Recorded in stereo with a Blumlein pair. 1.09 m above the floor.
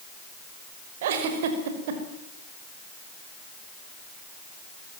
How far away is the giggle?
About 5.5 m.